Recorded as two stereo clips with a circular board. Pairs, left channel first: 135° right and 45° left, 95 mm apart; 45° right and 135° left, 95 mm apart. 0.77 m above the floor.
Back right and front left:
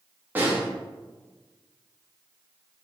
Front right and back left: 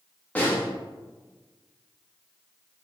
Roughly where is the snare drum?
Ahead.